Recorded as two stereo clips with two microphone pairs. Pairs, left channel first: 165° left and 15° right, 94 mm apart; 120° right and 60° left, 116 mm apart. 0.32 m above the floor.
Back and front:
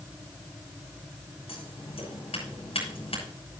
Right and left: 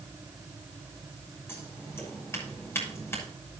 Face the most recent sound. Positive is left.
turn(degrees=170)